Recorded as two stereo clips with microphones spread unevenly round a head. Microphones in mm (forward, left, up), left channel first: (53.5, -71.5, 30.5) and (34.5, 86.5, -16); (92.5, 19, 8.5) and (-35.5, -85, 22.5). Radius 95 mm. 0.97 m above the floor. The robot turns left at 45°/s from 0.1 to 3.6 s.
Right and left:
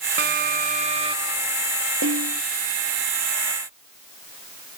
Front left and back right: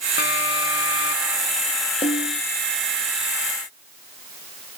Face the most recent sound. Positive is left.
turn(degrees=30)